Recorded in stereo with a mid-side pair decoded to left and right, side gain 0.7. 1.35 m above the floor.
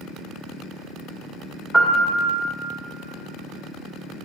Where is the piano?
5° left, 1.3 m.